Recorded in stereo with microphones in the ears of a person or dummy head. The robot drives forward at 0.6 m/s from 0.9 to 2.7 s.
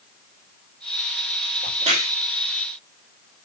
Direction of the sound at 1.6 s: 40° right (ahead or behind).